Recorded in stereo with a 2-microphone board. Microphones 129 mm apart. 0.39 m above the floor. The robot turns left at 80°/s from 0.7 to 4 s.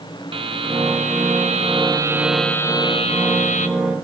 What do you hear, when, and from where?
0.3 s a buzzer: 45° right, 0.9 m; by 3.7 s 75° left, 0.9 m